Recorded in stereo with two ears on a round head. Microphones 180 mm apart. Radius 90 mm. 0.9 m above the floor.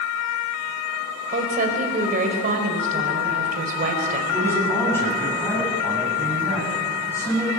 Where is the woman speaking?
45° right (ahead or behind), 4 m.